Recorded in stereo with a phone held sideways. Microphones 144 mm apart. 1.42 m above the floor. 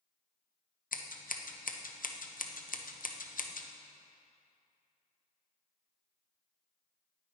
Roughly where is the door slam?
No door slam in this recording.